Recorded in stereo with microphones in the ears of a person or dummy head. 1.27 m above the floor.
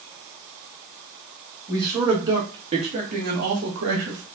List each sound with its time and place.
1.7 s a man speaking: 15° right (ahead or behind), 2.5 m; by 4.2 s 70° right (ahead or behind), 1.8 m